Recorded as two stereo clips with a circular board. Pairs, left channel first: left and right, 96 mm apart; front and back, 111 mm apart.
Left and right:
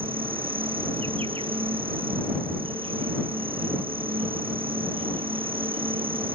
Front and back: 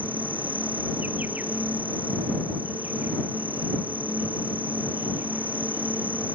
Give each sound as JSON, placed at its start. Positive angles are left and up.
{"t": 0.0, "sound": "an insect", "azimuth_deg": -105}